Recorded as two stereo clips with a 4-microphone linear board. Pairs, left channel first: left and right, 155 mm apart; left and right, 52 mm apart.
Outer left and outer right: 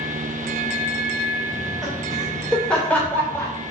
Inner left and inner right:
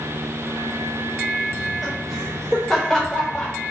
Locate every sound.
1.5 s laughter: 10° right (ahead or behind), 3 m; by 3.5 s 15° left (ahead or behind), 3.5 m